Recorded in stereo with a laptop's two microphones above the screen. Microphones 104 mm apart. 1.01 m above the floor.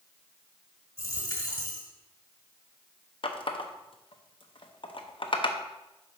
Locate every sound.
1.0 s a dropped coin: 35° left (ahead or behind), 1.4 m
3.2 s a running tap: 55° left (ahead or behind), 0.7 m